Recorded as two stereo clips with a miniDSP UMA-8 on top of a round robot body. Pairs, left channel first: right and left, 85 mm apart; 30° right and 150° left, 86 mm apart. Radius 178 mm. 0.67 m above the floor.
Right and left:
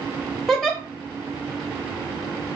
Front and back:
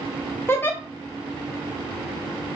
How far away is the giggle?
About 1.1 m.